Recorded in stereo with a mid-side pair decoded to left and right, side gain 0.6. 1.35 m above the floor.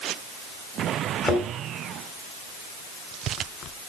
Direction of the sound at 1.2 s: 30° left.